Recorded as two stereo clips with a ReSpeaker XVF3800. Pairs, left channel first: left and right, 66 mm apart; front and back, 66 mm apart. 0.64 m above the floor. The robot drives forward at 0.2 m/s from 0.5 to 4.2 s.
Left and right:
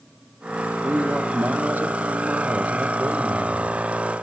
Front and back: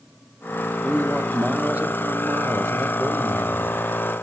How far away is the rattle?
No rattle in this recording.